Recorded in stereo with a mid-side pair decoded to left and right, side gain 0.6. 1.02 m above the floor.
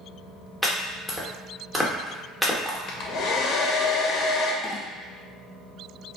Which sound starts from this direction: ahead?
Chopping, at 0.6 s.